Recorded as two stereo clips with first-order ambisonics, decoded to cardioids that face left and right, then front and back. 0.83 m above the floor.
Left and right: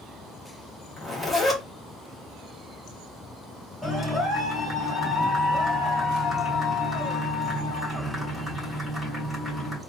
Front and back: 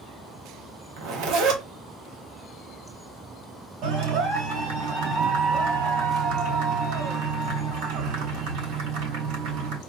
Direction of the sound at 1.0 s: 170° left.